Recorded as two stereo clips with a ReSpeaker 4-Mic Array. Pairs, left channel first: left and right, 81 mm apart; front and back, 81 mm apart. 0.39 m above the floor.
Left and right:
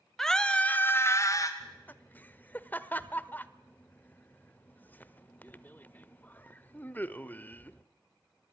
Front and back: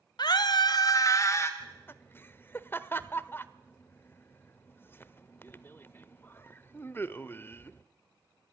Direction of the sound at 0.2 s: 5° left.